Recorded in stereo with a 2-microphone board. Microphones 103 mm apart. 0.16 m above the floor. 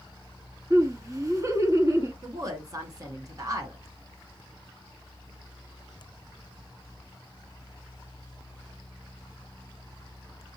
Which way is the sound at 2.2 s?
35° right (ahead or behind).